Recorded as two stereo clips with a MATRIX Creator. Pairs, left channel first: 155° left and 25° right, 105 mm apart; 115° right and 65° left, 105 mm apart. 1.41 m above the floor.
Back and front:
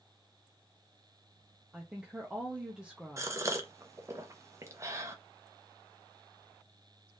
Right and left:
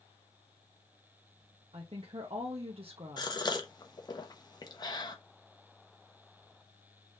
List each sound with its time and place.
1.7 s a woman speaking: 60° left, 0.7 m
3.2 s a gasp: 75° right, 0.7 m